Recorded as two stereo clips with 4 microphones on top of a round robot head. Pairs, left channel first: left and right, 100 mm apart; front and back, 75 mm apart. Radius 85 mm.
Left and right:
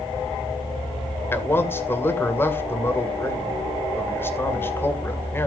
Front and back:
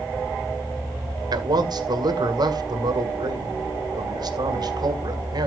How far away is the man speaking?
About 2 m.